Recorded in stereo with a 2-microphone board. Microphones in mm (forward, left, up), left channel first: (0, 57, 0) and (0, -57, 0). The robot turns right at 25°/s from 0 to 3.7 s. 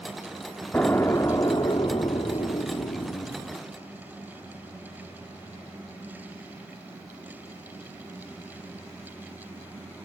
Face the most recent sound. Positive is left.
turn(degrees=90)